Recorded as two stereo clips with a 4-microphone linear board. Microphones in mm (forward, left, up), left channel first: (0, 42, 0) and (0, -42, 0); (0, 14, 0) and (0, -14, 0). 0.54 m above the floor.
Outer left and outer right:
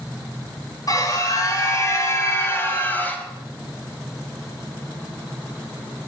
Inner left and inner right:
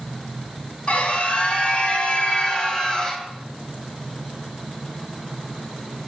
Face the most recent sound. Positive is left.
turn(degrees=20)  # may be behind; listen again after turning